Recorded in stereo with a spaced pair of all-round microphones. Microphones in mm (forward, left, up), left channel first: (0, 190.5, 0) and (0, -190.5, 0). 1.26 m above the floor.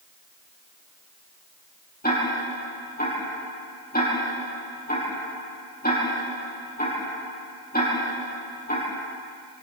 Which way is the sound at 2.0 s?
25° left (ahead or behind).